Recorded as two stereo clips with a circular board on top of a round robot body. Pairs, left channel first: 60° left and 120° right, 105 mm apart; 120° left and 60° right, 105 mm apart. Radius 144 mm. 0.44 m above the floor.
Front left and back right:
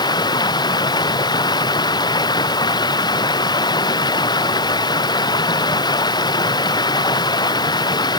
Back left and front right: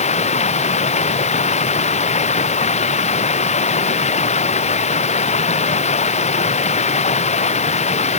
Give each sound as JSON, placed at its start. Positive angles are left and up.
{"t": 0.0, "sound": "running water", "azimuth_deg": 110}